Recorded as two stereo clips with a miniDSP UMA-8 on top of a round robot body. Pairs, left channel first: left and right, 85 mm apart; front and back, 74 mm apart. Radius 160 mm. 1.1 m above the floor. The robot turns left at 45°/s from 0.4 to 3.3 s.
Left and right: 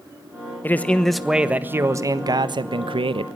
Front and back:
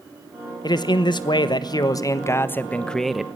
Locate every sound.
0.6 s a man speaking: 25° left, 1.5 m; by 3.3 s 95° right, 1.5 m